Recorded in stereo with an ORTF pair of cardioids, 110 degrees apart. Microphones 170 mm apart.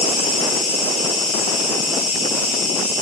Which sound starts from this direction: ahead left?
An insect, at 0.0 s.